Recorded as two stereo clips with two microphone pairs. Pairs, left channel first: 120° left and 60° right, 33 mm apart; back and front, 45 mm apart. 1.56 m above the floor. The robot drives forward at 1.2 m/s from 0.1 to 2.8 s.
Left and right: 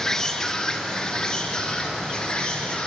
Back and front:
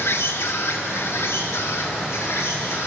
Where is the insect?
170° right, 1.5 m; by 2.9 s 175° right, 4.5 m.